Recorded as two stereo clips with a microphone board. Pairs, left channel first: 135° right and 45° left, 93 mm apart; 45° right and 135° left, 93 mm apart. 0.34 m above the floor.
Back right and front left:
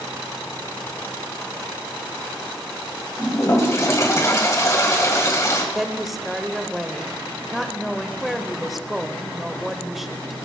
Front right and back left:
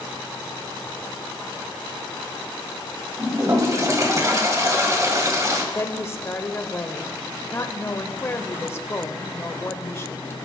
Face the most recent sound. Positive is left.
turn(degrees=-40)